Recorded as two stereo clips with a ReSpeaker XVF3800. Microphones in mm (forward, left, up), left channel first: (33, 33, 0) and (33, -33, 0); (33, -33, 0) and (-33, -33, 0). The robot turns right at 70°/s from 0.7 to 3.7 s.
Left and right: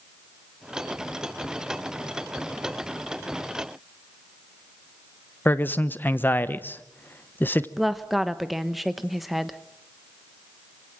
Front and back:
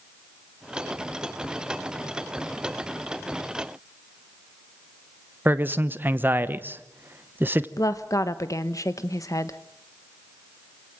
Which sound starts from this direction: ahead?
A woman speaking, at 7.8 s.